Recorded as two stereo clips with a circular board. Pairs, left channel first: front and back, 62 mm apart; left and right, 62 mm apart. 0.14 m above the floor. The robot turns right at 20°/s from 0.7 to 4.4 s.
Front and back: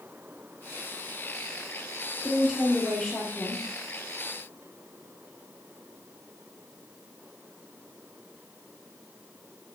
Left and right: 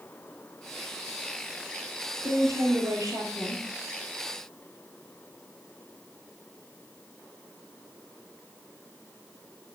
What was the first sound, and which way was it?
A woman speaking, 100° right.